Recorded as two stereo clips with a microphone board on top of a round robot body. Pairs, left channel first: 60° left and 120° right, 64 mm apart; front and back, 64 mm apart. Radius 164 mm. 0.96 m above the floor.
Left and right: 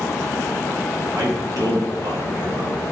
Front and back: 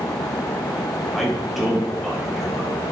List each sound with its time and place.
1.1 s a man speaking: 90° right, 4.5 m